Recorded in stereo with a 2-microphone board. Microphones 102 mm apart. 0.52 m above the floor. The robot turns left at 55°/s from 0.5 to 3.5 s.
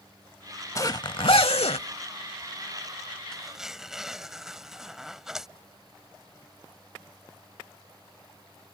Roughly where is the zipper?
Left.